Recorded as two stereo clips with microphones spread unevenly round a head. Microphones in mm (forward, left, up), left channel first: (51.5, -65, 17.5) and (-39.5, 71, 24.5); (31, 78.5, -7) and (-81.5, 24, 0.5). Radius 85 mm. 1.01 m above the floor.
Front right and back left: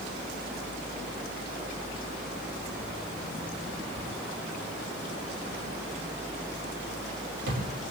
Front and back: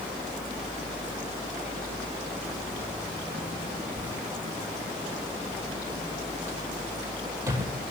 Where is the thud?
150° left, 7.5 m.